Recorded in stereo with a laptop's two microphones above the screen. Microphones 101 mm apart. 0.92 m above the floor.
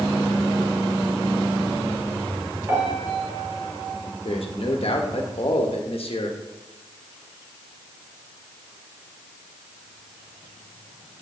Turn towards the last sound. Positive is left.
turn(degrees=65)  # may be behind; listen again after turning